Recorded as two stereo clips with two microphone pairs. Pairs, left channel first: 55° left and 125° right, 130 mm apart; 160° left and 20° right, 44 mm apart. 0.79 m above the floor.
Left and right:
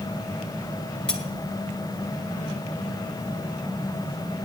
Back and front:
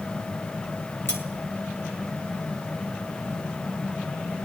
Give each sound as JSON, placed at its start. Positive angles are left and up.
{"t": 1.1, "sound": "cutlery clinking", "azimuth_deg": 140, "distance_m": 2.5}